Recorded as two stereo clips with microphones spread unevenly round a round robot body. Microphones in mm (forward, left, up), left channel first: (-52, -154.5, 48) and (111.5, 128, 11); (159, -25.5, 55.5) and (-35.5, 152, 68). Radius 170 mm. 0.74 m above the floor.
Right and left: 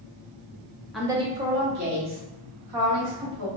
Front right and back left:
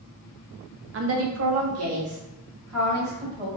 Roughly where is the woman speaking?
Behind left.